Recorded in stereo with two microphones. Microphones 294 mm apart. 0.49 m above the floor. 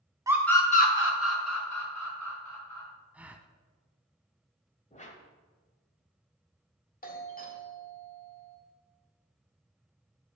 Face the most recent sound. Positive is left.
turn(degrees=30)  # may be behind; listen again after turning